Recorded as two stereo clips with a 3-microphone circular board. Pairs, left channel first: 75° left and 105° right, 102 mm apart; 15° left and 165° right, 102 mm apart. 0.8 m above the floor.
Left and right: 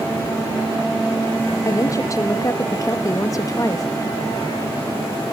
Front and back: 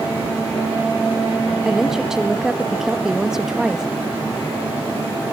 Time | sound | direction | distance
1.6 | a woman speaking | 110° left | 1.0 m